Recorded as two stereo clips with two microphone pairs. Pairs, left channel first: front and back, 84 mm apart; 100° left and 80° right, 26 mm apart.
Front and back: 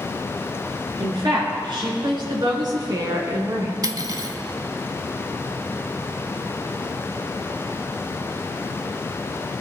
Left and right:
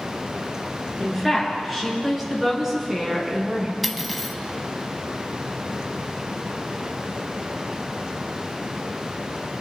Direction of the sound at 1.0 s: 170° right.